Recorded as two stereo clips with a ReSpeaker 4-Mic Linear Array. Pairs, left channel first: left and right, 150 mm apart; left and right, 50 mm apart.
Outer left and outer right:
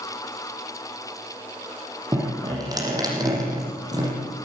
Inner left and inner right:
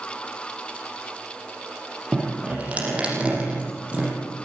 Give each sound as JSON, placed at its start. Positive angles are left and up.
{"t": 2.1, "sound": "dripping", "side_deg": -25, "distance_m": 7.5}